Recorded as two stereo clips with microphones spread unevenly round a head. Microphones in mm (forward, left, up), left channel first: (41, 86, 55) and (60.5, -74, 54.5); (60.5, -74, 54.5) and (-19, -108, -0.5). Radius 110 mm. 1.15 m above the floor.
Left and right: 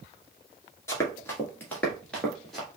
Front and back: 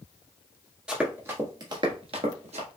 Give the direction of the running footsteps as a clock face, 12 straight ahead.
11 o'clock.